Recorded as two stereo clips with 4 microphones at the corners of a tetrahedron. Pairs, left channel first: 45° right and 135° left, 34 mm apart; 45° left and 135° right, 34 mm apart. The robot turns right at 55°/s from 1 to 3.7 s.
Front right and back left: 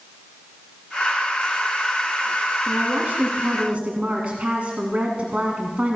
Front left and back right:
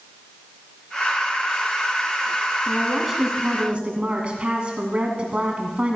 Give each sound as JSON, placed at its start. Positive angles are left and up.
{"t": 2.7, "sound": "a woman speaking", "azimuth_deg": 115, "distance_m": 2.0}